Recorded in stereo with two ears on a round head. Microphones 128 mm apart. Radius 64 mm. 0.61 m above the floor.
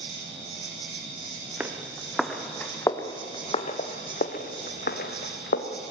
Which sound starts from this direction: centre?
Footsteps, at 1.6 s.